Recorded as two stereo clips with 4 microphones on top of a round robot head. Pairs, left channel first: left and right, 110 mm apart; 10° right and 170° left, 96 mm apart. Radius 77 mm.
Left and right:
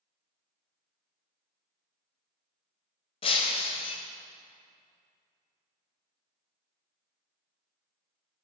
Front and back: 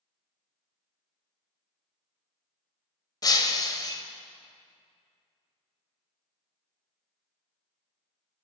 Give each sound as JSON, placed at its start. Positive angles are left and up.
{"t": 3.2, "sound": "breaking glass", "azimuth_deg": 40, "distance_m": 1.1}